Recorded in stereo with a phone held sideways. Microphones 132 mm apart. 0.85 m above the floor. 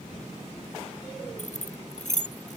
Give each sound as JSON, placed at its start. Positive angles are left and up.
{"t": 1.4, "sound": "keys jangling", "side_deg": 65}